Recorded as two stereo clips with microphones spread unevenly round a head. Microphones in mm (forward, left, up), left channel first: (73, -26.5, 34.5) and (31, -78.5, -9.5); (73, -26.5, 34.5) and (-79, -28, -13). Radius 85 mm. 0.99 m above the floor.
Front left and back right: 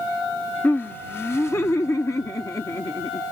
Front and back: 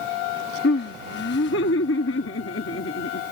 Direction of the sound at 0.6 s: 20° right.